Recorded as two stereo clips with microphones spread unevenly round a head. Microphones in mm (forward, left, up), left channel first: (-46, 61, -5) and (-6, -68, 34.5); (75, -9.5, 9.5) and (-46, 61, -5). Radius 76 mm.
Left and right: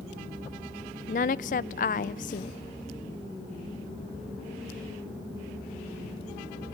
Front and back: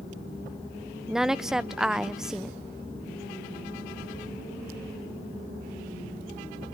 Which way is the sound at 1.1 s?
60° left.